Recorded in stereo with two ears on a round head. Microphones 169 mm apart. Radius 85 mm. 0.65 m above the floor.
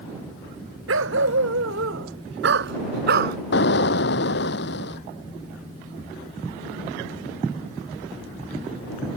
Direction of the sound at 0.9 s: 80° right.